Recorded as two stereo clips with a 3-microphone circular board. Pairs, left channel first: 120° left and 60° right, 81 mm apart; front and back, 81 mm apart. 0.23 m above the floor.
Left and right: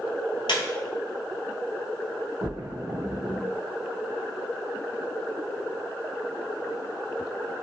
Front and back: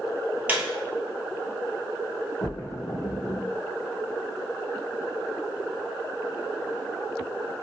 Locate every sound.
0.5 s a squeak: 110° left, 0.8 m
2.4 s a splash: 55° right, 1.5 m